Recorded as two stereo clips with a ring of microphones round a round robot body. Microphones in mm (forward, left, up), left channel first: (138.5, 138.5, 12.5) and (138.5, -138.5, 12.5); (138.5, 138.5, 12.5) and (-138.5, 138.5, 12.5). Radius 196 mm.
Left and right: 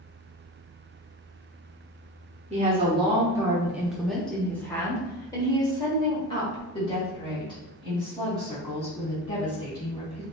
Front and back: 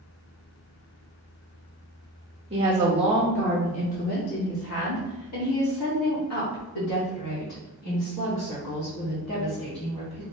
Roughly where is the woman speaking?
Behind right.